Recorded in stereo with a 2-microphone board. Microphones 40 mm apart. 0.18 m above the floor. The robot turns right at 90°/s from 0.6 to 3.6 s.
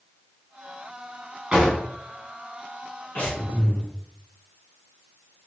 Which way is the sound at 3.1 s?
110° left.